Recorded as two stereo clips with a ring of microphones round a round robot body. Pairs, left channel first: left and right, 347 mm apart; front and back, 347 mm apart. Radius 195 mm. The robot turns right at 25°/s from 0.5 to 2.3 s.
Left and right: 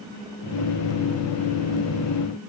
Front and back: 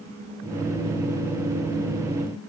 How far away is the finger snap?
I don't hear a finger snap.